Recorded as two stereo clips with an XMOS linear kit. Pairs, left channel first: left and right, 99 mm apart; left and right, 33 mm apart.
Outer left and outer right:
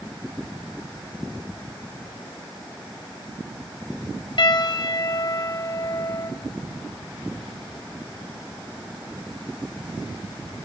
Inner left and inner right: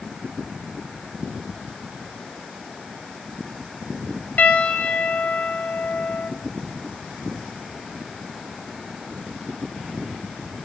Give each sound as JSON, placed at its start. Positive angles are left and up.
{"t": 4.4, "sound": "a piano", "side_deg": 65, "distance_m": 1.5}